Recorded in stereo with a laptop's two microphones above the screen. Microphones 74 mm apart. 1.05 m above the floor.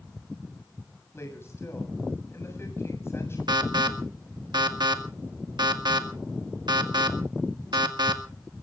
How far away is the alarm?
About 1.9 m.